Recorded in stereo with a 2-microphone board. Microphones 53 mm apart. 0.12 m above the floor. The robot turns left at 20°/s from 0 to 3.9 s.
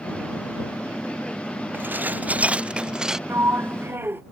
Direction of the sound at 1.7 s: 45° right (ahead or behind).